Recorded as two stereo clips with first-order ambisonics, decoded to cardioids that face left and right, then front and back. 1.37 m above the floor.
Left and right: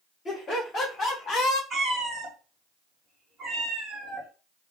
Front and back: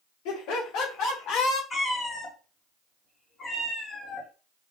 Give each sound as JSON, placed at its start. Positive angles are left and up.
{"t": 0.2, "sound": "laughter", "azimuth_deg": 15, "distance_m": 2.5}
{"t": 1.7, "sound": "a cat meowing", "azimuth_deg": -40, "distance_m": 1.1}